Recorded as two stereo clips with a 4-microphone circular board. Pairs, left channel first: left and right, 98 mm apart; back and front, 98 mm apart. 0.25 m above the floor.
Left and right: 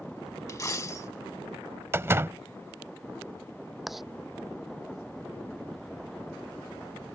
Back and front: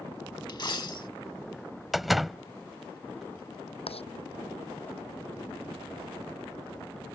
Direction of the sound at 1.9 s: 85° right.